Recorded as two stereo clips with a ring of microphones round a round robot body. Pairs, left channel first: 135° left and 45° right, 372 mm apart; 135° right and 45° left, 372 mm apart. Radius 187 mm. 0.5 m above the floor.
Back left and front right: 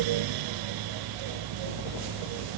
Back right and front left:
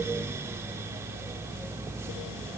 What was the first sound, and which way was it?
Only background noise.